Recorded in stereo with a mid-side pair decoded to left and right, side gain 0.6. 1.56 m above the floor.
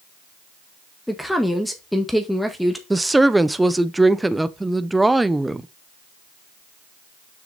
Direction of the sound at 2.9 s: 10° right.